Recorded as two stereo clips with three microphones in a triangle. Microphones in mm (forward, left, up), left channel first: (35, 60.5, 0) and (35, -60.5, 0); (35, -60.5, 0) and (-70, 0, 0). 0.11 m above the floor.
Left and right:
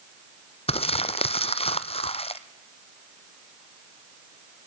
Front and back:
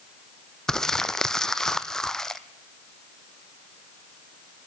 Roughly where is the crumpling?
Ahead left.